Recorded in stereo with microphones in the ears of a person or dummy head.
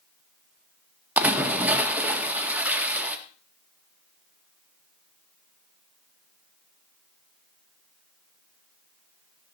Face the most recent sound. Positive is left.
turn(degrees=0)  # may be behind; listen again after turning